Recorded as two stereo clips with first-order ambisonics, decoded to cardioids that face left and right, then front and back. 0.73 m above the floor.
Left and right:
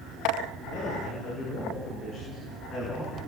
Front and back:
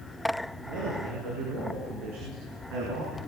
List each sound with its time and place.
0.7 s a man speaking: 155° left, 9.5 m; by 3.2 s 170° left, 7.5 m